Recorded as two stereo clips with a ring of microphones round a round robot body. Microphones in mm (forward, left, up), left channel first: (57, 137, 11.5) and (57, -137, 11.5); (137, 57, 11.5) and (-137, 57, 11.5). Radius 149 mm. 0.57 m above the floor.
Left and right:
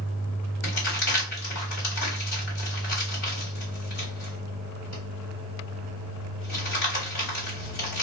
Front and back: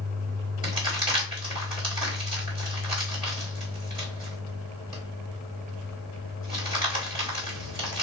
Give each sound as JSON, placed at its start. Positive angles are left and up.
{"t": 0.6, "sound": "crumpling", "azimuth_deg": 110, "distance_m": 2.0}